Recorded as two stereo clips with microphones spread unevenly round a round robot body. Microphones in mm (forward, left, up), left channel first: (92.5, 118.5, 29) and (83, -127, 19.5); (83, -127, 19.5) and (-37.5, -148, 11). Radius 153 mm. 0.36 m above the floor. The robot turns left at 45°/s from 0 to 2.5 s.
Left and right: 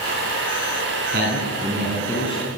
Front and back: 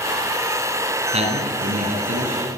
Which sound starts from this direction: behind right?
A man speaking, at 1.1 s.